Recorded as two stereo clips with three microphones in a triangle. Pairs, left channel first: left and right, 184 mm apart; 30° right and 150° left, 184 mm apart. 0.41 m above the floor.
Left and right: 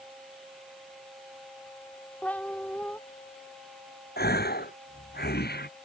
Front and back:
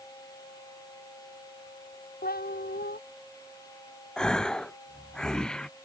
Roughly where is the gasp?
Ahead left.